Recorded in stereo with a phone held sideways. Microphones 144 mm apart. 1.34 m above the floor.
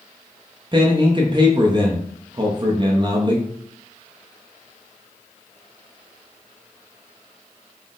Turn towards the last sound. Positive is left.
turn(degrees=-35)  # may be behind; listen again after turning